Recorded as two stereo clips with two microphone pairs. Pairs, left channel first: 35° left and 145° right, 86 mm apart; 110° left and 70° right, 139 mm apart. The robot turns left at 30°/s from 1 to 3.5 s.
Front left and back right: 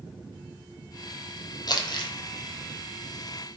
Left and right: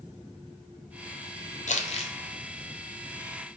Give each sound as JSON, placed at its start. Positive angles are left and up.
{"t": 1.7, "sound": "crumpling", "azimuth_deg": 80, "distance_m": 0.5}